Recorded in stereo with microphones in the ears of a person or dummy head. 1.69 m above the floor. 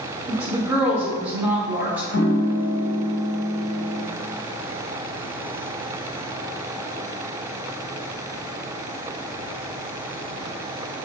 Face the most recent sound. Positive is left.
turn(degrees=65)  # may be behind; listen again after turning